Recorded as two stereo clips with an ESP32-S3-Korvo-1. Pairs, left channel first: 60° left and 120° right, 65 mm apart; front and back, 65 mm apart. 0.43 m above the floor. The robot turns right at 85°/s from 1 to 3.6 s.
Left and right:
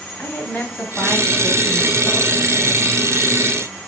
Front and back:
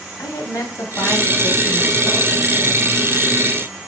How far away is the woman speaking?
About 2.5 m.